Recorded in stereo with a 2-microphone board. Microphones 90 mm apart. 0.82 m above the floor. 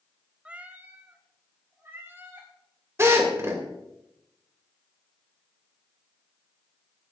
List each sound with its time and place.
0.5 s a cat meowing: 10° right (ahead or behind), 0.7 m; by 2.5 s 25° right (ahead or behind), 3.5 m
3.0 s a drill: 30° right (ahead or behind), 2.5 m